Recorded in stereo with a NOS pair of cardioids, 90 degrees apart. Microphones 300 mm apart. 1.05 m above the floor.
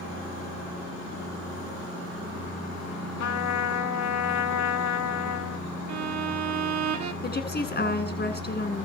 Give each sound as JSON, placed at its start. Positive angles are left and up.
{"t": 3.2, "sound": "a trumpet", "azimuth_deg": 65, "distance_m": 1.9}
{"t": 5.9, "sound": "a violin", "azimuth_deg": -65, "distance_m": 1.7}
{"t": 7.2, "sound": "a woman speaking", "azimuth_deg": 30, "distance_m": 9.0}